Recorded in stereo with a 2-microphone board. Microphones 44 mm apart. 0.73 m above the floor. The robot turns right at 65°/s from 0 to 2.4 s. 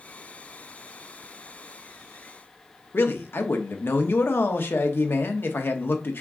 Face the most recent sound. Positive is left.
turn(degrees=60)  # may be behind; listen again after turning